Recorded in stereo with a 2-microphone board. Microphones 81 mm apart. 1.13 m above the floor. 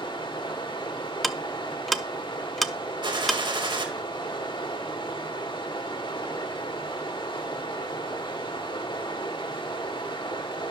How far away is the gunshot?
About 2 m.